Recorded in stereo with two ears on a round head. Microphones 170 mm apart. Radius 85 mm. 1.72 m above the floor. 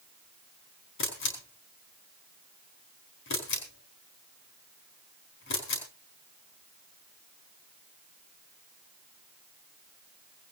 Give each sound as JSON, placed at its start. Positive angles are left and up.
{"t": 1.0, "sound": "a camera shutter", "side_deg": 70, "distance_m": 4.5}